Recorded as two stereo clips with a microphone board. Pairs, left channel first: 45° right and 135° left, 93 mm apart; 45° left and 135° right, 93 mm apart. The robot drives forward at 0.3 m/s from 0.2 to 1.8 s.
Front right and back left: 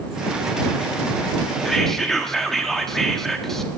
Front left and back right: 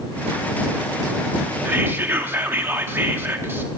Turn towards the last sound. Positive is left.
turn(degrees=-125)